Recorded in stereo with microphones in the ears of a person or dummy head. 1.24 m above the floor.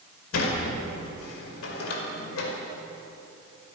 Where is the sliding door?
90° left, 4.5 m.